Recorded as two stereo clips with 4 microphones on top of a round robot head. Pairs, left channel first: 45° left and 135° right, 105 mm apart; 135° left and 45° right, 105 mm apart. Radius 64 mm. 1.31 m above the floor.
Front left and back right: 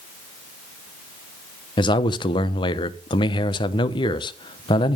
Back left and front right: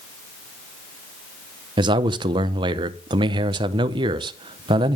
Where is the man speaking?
Straight ahead, 0.9 m.